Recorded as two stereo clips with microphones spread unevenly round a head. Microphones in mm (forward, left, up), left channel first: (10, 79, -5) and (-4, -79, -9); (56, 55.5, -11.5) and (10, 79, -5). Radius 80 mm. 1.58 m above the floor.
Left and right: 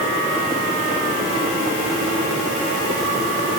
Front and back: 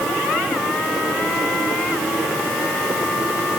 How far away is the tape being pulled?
No tape being pulled in this recording.